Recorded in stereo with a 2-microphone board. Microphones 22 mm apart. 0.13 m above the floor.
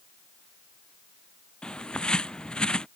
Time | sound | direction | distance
1.6 | a bird | 45° left (ahead or behind) | ?